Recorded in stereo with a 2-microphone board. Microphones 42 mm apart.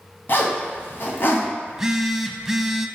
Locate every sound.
0.3 s a zipper: 55° left (ahead or behind), 1.9 m
1.7 s a phone buzzing: 10° right (ahead or behind), 0.6 m